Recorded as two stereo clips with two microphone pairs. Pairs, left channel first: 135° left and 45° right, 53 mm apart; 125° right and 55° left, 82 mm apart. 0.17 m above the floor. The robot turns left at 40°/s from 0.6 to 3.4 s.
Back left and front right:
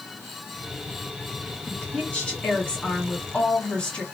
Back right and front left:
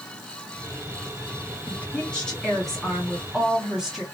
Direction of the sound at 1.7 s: 170° right.